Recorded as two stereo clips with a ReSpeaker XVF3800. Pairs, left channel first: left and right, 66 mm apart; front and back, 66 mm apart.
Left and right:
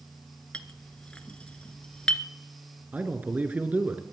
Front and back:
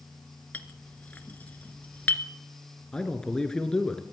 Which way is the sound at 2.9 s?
65° right.